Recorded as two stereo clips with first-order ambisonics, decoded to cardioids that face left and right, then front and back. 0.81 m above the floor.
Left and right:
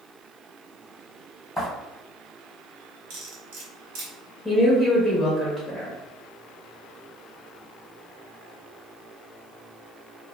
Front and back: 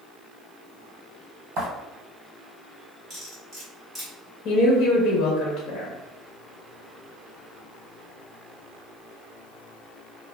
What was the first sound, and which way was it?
Footsteps, 175° left.